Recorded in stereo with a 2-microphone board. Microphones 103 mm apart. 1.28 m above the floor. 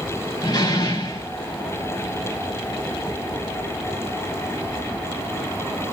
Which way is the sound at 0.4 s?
40° left (ahead or behind).